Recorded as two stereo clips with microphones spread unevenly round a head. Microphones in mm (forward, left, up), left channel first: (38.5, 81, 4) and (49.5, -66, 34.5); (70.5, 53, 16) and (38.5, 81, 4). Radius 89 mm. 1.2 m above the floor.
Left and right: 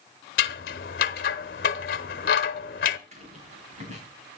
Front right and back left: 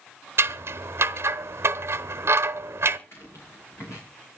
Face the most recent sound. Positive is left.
turn(degrees=-50)